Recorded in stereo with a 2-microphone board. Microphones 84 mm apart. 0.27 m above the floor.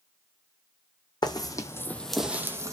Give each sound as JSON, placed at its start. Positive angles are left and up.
{"t": 1.2, "sound": "footsteps", "side_deg": 55, "distance_m": 0.8}